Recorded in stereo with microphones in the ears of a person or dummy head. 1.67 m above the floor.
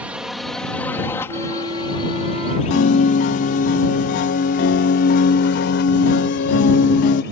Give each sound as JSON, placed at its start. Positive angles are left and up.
{"t": 0.0, "sound": "a drone", "side_deg": -10}
{"t": 1.3, "sound": "a flute", "side_deg": -30}
{"t": 2.7, "sound": "a piano", "side_deg": 45}